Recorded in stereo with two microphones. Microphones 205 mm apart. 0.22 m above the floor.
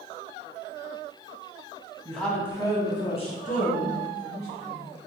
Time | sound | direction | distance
2.0 | a woman speaking | centre (ahead or behind) | 1.2 m